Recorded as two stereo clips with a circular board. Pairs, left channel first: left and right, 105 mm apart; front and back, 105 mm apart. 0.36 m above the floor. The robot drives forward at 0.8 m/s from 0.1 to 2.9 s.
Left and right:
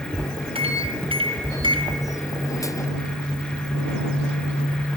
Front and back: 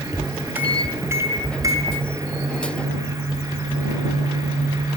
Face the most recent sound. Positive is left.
turn(degrees=-135)